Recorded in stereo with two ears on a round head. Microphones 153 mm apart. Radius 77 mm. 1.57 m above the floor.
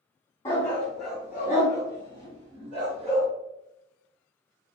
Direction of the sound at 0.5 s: 15° left (ahead or behind).